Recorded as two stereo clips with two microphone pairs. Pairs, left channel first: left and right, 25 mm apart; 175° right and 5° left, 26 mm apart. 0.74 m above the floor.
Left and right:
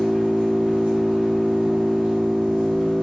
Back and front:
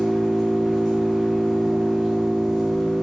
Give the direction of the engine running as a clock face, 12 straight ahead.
3 o'clock.